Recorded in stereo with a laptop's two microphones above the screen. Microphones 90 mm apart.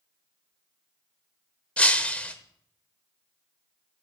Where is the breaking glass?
15° left (ahead or behind), 0.8 m.